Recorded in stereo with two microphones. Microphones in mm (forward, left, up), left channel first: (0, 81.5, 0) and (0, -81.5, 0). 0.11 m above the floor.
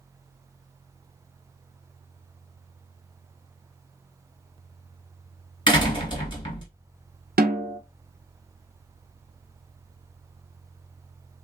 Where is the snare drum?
60° right (ahead or behind), 0.6 m.